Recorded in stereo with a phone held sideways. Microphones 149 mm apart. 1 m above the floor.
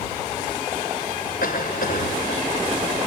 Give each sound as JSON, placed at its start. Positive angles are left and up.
{"t": 1.4, "sound": "a cough", "side_deg": 80}